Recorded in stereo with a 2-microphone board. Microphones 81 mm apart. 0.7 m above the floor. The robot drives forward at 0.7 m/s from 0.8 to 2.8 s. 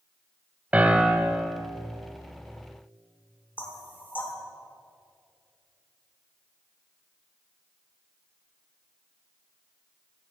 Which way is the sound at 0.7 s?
15° right (ahead or behind).